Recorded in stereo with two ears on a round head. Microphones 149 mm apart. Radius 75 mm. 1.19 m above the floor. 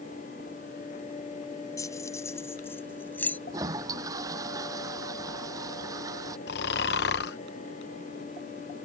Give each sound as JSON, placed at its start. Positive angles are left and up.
{"t": 1.8, "sound": "keys jangling", "side_deg": 20}
{"t": 3.5, "sound": "a toilet flushing", "side_deg": -20}
{"t": 6.5, "sound": "snoring", "side_deg": 65}